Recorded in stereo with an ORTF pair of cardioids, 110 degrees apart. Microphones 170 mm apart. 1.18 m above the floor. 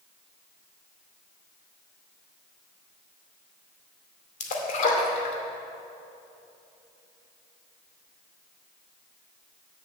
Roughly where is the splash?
Ahead left.